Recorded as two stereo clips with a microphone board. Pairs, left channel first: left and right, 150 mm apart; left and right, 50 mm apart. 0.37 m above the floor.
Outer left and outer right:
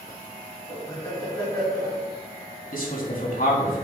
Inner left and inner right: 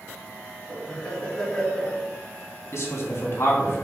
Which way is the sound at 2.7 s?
65° left (ahead or behind).